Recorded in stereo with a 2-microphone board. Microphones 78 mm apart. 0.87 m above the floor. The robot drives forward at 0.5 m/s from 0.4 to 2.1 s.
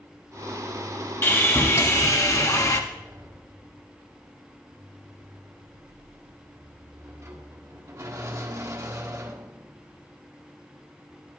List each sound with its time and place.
1.2 s sawing: 35° left (ahead or behind), 1.4 m; by 2.8 s 50° left (ahead or behind), 1.1 m
2.9 s a sliding door: 40° right (ahead or behind), 1.2 m